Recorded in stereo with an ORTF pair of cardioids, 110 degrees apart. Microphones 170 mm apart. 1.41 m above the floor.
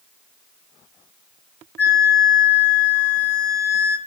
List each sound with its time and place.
1.8 s a flute: 15° left, 3.5 m